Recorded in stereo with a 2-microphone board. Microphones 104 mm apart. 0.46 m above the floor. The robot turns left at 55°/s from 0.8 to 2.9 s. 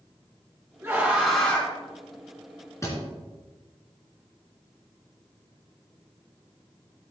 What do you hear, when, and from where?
0.8 s a scream: 150° right, 3 m; by 1.7 s 155° left, 3 m
2.8 s a thud: 30° left (ahead or behind), 3 m; by 3.0 s 35° left (ahead or behind), 3 m